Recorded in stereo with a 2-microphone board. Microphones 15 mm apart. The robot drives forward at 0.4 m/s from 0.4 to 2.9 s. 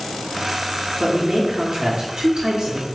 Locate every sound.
1.0 s a man speaking: 70° right (ahead or behind), 1.3 m; by 2.9 s 65° right (ahead or behind), 1.3 m